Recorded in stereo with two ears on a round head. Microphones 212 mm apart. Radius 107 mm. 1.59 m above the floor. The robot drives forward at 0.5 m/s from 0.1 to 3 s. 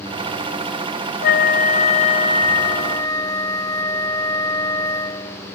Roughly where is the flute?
Left.